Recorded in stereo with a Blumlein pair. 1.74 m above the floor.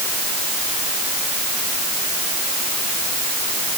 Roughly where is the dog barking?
I don't hear a dog barking.